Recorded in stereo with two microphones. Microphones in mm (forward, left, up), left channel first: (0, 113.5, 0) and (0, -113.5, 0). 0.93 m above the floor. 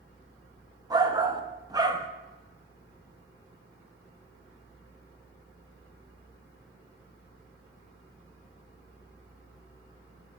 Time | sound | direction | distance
0.9 | a shout | 15° right (ahead or behind) | 0.6 m